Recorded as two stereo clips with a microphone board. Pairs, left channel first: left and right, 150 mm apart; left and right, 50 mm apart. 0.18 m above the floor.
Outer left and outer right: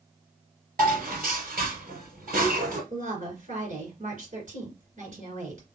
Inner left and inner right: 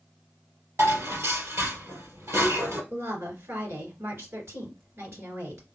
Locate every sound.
0.8 s dishes clattering: 70° right (ahead or behind), 2.5 m
2.9 s a woman speaking: 60° right (ahead or behind), 2.5 m